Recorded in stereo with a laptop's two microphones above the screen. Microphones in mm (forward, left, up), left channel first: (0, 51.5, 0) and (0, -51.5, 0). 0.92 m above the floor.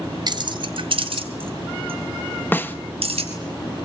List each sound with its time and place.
0.3 s keys jangling: 45° right (ahead or behind), 1.3 m; by 3.3 s 80° right, 5 m
2.5 s a snare drum: 20° left (ahead or behind), 1.3 m